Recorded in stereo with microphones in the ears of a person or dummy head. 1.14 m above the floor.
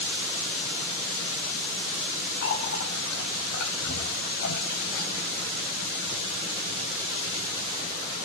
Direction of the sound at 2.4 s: 60° left (ahead or behind).